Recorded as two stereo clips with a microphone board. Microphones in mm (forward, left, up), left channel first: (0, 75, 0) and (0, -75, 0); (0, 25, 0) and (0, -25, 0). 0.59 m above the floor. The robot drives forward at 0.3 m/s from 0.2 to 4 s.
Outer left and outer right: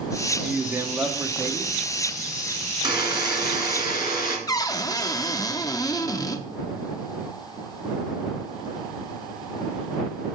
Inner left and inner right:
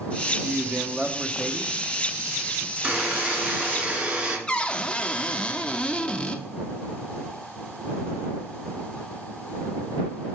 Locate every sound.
0.4 s a man speaking: 15° right (ahead or behind), 0.7 m
2.8 s a buzzer: 30° right (ahead or behind), 1.9 m; by 4.4 s 25° right (ahead or behind), 2 m
4.5 s a cupboard door: 25° left (ahead or behind), 0.5 m